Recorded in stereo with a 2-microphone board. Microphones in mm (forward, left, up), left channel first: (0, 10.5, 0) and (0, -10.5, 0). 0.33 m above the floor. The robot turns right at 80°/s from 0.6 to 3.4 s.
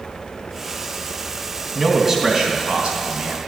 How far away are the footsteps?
I don't hear footsteps.